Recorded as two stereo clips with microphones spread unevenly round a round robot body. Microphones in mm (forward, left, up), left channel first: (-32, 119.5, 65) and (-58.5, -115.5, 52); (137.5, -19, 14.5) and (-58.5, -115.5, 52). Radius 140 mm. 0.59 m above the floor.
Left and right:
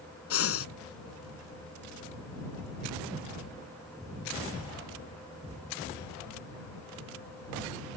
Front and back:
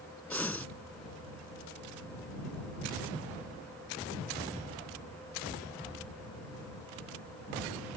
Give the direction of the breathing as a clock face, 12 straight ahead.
8 o'clock.